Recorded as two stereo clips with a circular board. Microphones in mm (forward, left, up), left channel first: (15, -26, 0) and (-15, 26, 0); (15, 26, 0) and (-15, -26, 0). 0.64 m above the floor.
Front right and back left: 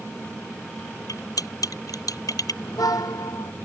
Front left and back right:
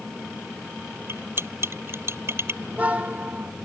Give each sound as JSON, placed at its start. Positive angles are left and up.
{"t": 1.1, "sound": "cutlery clinking", "azimuth_deg": -70}
{"t": 2.6, "sound": "a car horn", "azimuth_deg": -55}